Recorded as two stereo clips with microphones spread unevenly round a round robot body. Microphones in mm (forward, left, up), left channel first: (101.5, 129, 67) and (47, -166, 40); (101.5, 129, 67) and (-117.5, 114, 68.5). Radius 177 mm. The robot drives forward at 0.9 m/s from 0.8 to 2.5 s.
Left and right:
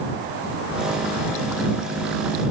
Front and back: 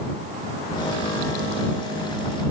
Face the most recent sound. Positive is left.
No sound to turn to.